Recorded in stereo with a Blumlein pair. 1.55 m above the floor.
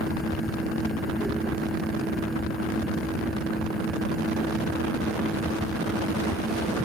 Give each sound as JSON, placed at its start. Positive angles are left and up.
{"t": 0.0, "sound": "a fan", "azimuth_deg": -5}